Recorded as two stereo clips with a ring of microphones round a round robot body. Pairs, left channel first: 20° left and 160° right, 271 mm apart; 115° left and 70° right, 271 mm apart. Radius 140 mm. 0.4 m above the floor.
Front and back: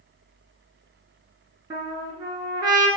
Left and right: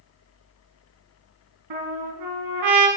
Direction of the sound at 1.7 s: 80° right.